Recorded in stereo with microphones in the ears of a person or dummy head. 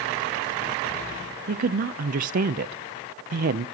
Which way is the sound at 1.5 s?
50° right (ahead or behind).